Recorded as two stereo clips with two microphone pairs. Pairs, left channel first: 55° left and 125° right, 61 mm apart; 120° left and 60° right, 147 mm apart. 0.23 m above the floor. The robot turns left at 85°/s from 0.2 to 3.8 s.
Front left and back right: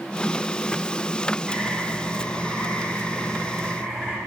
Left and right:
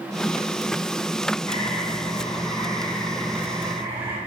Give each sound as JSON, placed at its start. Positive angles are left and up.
{"t": 1.5, "sound": "a bird", "azimuth_deg": 155, "distance_m": 1.2}